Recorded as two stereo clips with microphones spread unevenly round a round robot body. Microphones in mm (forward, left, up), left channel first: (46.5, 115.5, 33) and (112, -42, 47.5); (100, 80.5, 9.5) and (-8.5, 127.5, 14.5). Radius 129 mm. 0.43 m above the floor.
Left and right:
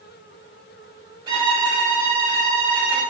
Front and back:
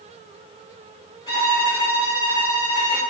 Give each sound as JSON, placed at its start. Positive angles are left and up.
{"t": 1.3, "sound": "a violin", "azimuth_deg": -20, "distance_m": 1.4}